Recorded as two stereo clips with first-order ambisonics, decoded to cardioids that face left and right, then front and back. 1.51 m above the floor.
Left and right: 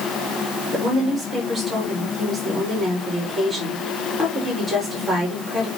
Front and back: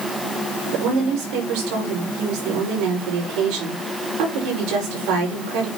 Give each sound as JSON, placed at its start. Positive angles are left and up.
{"t": 0.7, "sound": "a woman speaking", "azimuth_deg": -175, "distance_m": 5.5}